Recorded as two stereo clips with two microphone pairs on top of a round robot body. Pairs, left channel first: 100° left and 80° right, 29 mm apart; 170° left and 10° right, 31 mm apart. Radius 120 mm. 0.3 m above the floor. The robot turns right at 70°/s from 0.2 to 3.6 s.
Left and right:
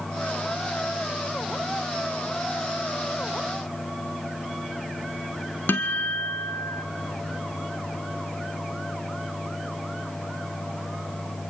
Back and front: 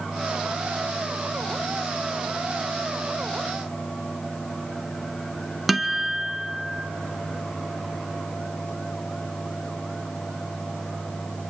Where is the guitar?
80° left, 0.8 m.